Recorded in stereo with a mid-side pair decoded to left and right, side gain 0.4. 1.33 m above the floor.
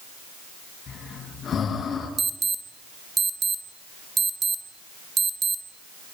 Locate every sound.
0.9 s breathing: 55° left, 6.5 m
2.2 s an alarm: 45° right, 1.8 m